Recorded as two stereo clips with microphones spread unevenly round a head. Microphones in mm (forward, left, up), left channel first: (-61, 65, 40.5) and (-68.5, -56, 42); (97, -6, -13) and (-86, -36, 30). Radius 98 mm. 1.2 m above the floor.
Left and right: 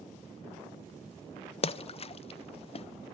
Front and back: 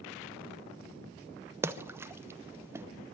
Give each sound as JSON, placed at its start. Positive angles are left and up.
{"t": 1.6, "sound": "a splash", "azimuth_deg": 105, "distance_m": 0.6}